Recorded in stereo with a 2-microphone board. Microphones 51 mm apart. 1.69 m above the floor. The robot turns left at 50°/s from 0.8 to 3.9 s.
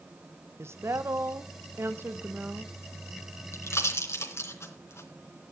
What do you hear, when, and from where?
0.6 s a woman speaking: 65° right, 1.2 m; by 2.7 s 160° right, 1.2 m
3.5 s a pop: 60° left (ahead or behind), 3 m